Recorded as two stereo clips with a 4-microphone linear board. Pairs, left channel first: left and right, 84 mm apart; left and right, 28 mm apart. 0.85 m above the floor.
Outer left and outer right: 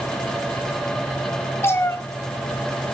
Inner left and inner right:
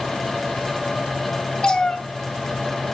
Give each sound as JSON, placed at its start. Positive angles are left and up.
{"t": 1.6, "sound": "a cat meowing", "side_deg": 30, "distance_m": 1.6}